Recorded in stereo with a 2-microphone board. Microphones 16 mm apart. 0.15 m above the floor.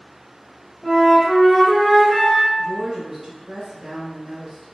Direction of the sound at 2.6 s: 15° right (ahead or behind).